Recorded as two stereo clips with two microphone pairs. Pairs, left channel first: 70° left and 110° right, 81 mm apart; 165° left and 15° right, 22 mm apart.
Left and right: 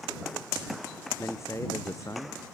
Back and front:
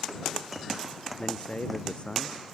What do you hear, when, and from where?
1.2 s a man speaking: 125° left; by 2.4 s 120° left